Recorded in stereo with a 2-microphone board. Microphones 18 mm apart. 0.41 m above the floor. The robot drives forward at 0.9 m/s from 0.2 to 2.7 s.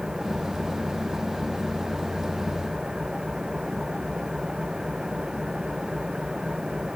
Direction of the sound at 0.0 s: 35° right (ahead or behind).